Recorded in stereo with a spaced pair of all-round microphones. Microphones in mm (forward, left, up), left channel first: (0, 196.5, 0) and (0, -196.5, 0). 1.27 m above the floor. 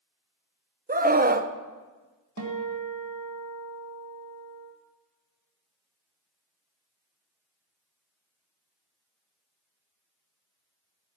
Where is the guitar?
40° right (ahead or behind), 1.7 m.